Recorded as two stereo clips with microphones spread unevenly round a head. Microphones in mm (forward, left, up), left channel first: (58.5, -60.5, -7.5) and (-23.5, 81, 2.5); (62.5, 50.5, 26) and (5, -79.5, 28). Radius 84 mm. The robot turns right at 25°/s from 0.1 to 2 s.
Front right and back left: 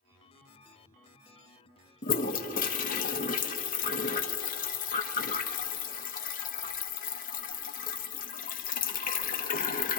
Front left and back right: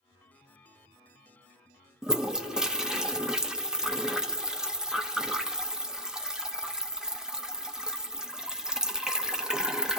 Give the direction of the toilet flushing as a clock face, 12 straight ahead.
1 o'clock.